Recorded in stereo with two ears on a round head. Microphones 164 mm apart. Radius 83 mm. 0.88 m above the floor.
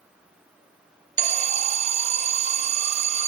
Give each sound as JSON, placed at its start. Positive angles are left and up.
{"t": 1.2, "sound": "an alarm", "side_deg": -40, "distance_m": 0.5}